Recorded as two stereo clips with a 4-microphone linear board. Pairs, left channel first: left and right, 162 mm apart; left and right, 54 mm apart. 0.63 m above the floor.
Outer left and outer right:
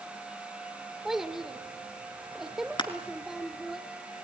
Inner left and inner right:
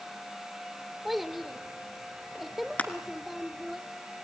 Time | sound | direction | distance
1.1 | a child speaking | 5° right (ahead or behind) | 1.0 m
2.8 | crushing | 30° left (ahead or behind) | 1.7 m